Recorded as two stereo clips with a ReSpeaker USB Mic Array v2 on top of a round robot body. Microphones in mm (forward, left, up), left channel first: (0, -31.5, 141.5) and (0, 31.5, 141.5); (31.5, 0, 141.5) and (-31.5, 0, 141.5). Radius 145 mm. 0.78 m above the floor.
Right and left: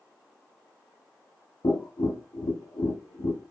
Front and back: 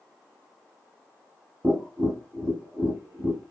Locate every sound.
1.6 s tapping: 125° right, 0.6 m